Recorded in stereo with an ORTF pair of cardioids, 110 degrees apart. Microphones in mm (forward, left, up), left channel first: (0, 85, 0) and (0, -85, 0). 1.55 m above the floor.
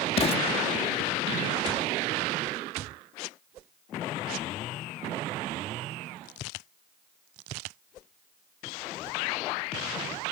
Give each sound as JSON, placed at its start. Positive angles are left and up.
{"t": 0.2, "sound": "an explosion", "azimuth_deg": 40}